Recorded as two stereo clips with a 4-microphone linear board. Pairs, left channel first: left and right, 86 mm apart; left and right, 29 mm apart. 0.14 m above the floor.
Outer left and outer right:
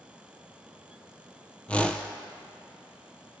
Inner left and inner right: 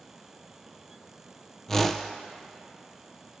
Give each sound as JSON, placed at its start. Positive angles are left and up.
{"t": 1.7, "sound": "a whoosh", "side_deg": 15, "distance_m": 0.7}